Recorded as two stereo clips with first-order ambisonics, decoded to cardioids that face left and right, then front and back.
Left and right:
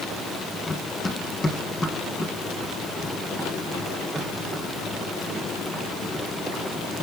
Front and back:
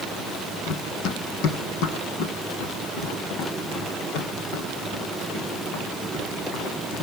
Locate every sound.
0.7 s running footsteps: 20° left, 2 m; by 7.0 s 5° right, 5.5 m